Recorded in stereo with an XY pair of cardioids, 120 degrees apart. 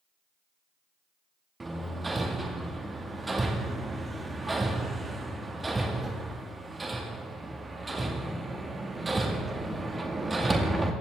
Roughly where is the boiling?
I don't hear boiling.